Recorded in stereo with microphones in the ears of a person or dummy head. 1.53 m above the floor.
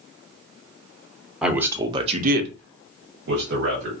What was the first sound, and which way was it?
A man speaking, 10° right (ahead or behind).